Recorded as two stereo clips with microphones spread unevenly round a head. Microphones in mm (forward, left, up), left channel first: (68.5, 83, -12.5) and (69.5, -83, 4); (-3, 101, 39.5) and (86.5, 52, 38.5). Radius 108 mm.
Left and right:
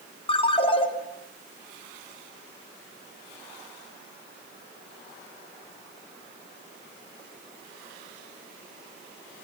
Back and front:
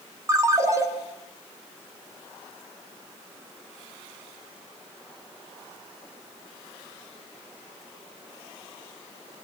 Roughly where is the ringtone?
Ahead left.